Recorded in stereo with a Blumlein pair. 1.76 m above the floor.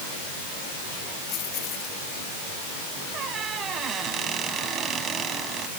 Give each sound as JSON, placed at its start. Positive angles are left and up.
{"t": 1.3, "sound": "keys jangling", "azimuth_deg": 35}
{"t": 3.1, "sound": "a squeak", "azimuth_deg": -25}